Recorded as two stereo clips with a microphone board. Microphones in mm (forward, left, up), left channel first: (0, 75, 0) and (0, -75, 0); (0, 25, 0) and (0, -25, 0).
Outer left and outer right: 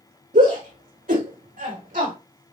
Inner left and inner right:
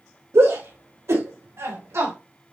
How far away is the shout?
About 5 m.